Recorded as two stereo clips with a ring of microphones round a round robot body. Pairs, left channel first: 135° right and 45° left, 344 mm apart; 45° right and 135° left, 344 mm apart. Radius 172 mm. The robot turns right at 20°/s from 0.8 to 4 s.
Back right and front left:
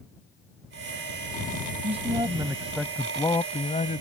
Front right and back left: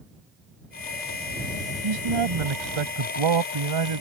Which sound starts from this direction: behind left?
A man speaking, at 1.8 s.